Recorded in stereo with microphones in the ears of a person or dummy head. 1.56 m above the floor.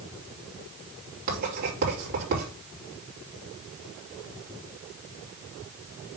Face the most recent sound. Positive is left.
turn(degrees=-45)  # may be behind; listen again after turning